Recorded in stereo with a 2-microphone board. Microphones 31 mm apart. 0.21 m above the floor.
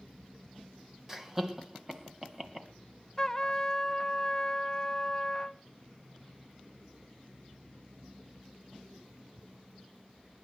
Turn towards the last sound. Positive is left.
turn(degrees=15)  # may be behind; listen again after turning